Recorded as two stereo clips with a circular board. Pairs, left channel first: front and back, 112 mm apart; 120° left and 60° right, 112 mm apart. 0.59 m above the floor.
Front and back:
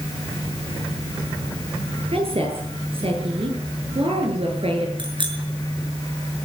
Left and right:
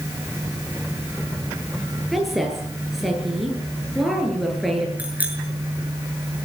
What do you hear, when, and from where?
2.1 s a woman speaking: 150° right, 10 m
5.0 s a bicycle bell: 135° right, 6 m